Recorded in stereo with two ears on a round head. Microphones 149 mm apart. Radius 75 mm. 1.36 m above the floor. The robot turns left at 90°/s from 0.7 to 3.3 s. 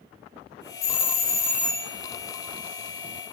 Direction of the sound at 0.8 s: 40° left (ahead or behind).